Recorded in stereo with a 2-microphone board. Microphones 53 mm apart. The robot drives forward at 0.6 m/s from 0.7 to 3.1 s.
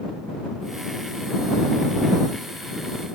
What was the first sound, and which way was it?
Only background noise.